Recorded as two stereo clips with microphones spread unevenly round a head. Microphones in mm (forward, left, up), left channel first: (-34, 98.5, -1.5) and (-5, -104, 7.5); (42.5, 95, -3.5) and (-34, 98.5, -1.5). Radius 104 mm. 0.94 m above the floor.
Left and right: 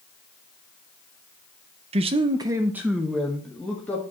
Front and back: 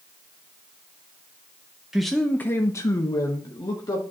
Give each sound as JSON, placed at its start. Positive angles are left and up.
{"t": 1.9, "sound": "a man speaking", "azimuth_deg": -100, "distance_m": 0.5}